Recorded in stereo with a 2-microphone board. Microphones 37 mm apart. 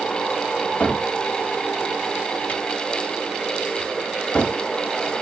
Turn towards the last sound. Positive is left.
turn(degrees=35)  # may be behind; listen again after turning